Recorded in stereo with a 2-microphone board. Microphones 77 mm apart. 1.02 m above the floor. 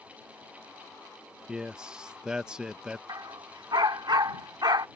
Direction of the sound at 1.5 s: 10° right (ahead or behind).